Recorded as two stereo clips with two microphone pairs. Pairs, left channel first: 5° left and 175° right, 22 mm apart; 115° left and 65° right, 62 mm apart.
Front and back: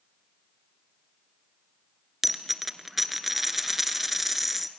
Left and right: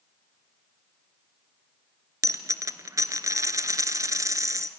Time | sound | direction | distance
2.2 | a dropped coin | 95° right | 1.1 m